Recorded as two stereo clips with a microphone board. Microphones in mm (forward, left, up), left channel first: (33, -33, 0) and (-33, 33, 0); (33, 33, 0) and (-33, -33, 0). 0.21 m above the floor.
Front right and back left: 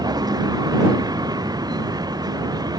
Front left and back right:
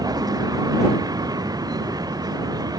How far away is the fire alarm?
I don't hear a fire alarm.